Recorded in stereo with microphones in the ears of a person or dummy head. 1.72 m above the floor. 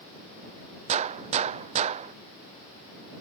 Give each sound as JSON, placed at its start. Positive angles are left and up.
{"t": 0.9, "sound": "a gunshot", "side_deg": -35}